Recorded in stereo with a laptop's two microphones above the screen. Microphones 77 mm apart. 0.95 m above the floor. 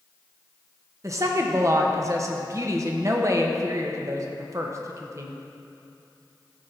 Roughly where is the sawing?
No sawing in this recording.